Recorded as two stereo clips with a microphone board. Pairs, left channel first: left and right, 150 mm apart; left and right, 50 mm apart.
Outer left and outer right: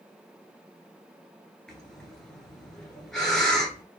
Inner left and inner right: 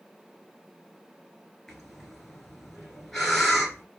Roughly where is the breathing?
Centre.